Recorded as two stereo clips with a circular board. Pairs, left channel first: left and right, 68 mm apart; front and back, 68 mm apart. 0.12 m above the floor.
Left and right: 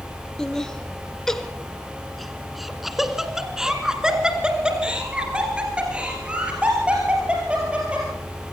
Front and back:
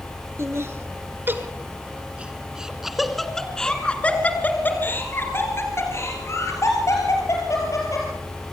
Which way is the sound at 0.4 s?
165° left.